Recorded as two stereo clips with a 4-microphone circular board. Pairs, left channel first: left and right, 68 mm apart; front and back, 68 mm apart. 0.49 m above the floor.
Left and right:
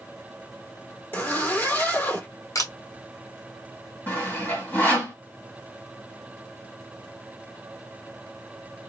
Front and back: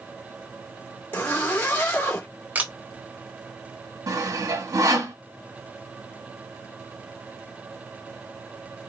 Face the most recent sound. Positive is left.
turn(degrees=155)